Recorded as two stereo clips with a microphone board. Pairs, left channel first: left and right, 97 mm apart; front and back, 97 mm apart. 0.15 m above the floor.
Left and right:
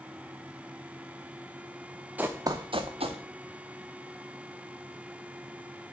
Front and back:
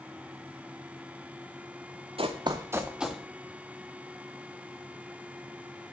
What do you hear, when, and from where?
2.2 s running footsteps: 165° right, 1.1 m; by 3.2 s 90° right, 1.6 m